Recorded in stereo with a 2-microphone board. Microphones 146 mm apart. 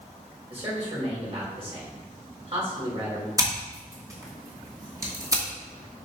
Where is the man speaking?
45° right (ahead or behind), 4 m.